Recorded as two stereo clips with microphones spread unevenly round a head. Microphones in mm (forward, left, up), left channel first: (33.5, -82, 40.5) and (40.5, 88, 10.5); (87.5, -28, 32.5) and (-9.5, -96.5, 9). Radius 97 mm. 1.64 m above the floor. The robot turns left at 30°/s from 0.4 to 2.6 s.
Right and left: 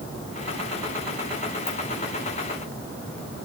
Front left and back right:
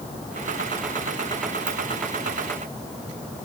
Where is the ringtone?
140° right, 7 m.